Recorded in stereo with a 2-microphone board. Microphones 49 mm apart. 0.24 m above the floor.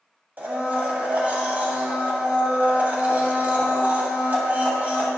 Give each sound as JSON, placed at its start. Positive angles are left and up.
{"t": 0.4, "sound": "a blender", "side_deg": -30, "distance_m": 1.2}